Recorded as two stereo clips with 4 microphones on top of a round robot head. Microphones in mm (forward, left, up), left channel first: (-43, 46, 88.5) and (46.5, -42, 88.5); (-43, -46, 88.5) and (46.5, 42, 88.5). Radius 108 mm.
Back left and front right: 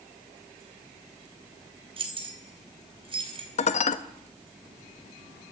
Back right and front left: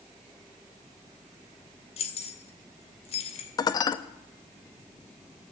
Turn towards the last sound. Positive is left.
turn(degrees=165)